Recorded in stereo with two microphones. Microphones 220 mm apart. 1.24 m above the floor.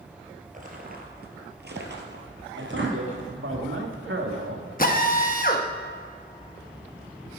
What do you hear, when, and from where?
0.5 s footsteps: 40° right (ahead or behind), 1.9 m; by 3.3 s 60° right (ahead or behind), 2.5 m
2.6 s a man speaking: 70° right (ahead or behind), 2.0 m
4.8 s a drill: 40° left (ahead or behind), 1.0 m